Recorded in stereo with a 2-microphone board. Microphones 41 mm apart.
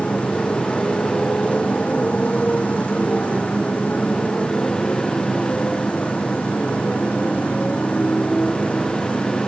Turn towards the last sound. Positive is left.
turn(degrees=30)  # may be behind; listen again after turning